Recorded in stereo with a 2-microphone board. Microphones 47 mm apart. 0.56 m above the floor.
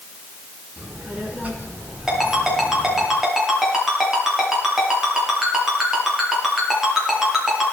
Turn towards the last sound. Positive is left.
turn(degrees=-15)  # may be behind; listen again after turning